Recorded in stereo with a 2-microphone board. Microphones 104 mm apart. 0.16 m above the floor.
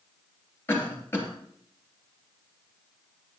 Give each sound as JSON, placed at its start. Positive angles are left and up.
{"t": 0.7, "sound": "a cough", "side_deg": 20, "distance_m": 3.0}